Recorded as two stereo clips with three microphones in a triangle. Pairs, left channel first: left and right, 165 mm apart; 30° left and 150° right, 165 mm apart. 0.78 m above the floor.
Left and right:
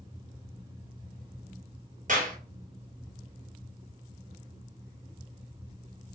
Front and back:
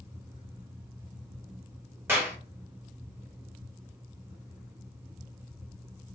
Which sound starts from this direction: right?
A clap, at 2.1 s.